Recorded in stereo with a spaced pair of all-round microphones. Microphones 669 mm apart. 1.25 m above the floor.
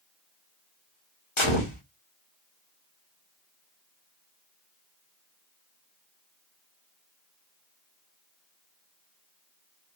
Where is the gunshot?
45° left (ahead or behind), 1.5 m.